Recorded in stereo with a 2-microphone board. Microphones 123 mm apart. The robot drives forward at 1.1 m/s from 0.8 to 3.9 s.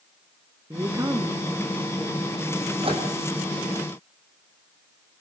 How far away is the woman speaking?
About 1.3 m.